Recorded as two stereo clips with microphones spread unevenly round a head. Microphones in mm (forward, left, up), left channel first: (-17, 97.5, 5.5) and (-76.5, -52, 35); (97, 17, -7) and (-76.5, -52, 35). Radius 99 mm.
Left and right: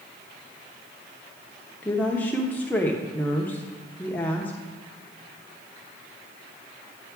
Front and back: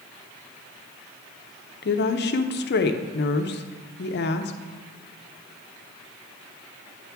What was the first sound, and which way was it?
A woman speaking, 15° right.